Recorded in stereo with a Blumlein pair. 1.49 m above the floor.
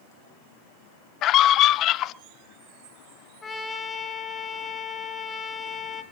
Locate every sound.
1.2 s a scream: 35° left, 0.9 m
3.4 s a trumpet: 15° left, 3.5 m